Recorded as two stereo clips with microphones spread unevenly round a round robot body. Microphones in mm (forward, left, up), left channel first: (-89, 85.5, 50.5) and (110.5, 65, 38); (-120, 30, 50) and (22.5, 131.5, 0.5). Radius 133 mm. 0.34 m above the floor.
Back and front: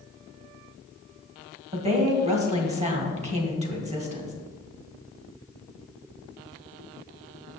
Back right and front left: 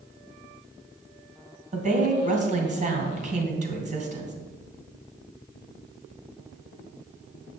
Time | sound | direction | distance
1.7 | a woman speaking | 40° left | 2 m